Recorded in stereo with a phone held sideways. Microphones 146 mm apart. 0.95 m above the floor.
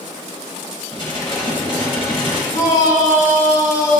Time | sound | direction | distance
0.9 | dishes clattering | 40° left (ahead or behind) | 4 m
2.5 | a shout | 65° left (ahead or behind) | 3.5 m